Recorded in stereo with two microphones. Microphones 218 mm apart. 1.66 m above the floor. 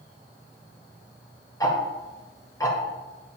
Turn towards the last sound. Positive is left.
turn(degrees=15)  # may be behind; listen again after turning